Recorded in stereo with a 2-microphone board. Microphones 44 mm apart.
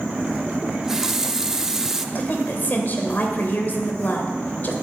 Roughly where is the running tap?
Centre.